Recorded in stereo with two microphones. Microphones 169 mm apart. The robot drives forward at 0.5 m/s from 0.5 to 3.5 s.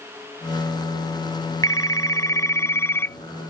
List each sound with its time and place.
1.6 s a phone ringing: 20° left (ahead or behind); by 3.2 s 15° left (ahead or behind)